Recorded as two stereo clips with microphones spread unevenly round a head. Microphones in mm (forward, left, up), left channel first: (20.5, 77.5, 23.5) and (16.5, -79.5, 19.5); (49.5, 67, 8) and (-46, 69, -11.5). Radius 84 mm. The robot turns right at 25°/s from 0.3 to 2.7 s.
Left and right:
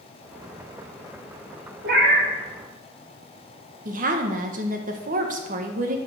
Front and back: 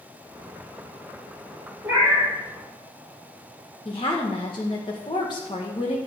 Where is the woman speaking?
55° right, 1.3 m.